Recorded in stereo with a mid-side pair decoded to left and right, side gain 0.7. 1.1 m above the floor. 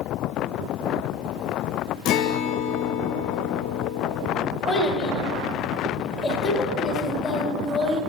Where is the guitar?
55° left, 0.5 m.